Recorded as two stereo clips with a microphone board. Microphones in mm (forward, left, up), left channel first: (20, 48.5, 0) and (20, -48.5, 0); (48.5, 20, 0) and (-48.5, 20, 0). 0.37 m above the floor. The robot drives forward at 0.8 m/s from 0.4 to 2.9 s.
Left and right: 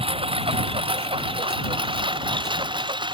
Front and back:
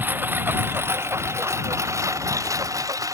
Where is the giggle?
I don't hear a giggle.